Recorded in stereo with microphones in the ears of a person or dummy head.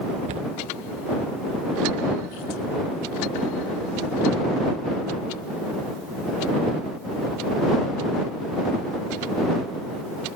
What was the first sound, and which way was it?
A cupboard door, 40° right (ahead or behind).